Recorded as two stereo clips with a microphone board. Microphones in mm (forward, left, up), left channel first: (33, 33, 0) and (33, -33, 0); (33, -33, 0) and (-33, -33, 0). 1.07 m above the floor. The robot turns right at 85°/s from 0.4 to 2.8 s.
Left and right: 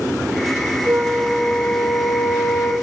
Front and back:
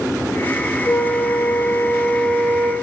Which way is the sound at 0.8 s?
40° right.